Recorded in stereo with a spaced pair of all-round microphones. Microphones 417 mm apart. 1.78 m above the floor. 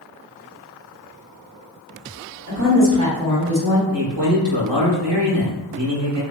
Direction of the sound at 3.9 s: 85° right.